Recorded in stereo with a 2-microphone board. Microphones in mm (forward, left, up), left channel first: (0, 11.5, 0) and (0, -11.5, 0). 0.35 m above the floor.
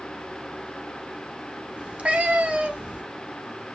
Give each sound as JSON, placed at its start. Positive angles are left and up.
{"t": 1.8, "sound": "a cat meowing", "side_deg": -70, "distance_m": 0.7}